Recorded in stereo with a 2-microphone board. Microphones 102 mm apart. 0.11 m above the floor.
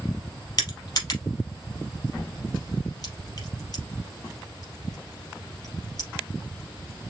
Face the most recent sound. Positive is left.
turn(degrees=40)  # may be behind; listen again after turning